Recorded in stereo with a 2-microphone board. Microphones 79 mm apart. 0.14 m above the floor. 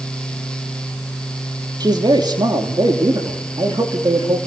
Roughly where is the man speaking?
Right.